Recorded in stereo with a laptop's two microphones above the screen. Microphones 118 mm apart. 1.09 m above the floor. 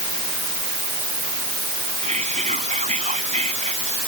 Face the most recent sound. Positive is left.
turn(degrees=-85)